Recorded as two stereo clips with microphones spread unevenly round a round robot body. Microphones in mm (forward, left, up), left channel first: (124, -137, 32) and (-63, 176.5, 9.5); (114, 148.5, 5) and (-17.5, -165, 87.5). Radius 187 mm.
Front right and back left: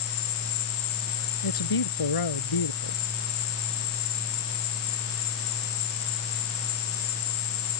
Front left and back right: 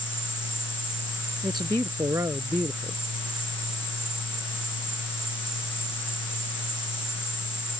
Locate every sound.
0.0 s an insect: 30° right
1.4 s a man speaking: 30° right